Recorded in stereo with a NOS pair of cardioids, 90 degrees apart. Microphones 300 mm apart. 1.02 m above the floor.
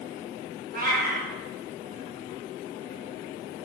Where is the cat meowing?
30° right, 0.8 m.